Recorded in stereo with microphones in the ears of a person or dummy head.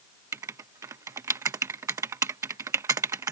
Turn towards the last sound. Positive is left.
turn(degrees=-20)  # may be behind; listen again after turning